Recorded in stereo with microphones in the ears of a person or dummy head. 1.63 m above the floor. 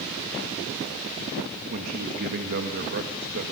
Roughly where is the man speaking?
Right.